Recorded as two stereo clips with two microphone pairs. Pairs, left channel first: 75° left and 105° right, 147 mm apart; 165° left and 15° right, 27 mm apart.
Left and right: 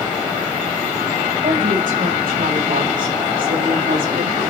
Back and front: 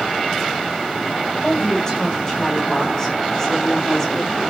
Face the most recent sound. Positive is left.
turn(degrees=-115)